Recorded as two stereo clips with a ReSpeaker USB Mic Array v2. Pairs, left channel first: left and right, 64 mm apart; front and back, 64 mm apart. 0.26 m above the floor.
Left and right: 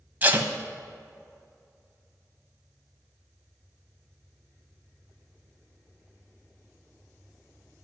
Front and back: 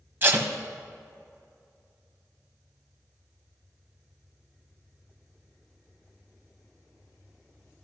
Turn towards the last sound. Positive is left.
turn(degrees=-140)